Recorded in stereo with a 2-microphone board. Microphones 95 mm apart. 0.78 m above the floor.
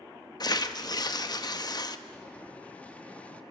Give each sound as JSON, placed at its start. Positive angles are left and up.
{"t": 0.4, "sound": "tearing paper", "side_deg": 45, "distance_m": 0.9}
{"t": 2.1, "sound": "boiling", "side_deg": 15, "distance_m": 1.0}